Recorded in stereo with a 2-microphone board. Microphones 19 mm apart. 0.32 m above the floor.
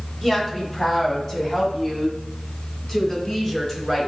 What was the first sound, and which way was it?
A woman speaking, 5° right (ahead or behind).